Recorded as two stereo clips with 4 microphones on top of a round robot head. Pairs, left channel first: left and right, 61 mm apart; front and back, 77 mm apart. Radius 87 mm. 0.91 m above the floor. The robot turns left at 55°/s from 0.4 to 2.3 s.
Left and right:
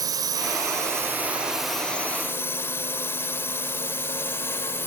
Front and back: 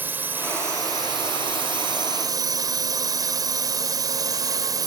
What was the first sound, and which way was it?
A drone, 110° right.